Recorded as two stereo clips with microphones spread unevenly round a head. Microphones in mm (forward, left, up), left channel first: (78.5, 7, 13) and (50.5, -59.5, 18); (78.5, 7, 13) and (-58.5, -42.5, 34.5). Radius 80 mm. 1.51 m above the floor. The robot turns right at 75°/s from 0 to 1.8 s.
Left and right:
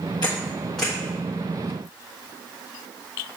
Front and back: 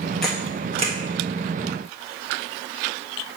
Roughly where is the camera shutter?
Behind left.